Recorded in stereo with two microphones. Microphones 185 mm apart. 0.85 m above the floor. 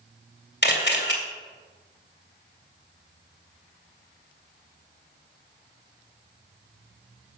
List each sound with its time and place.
0.6 s a camera shutter: 65° left (ahead or behind), 2 m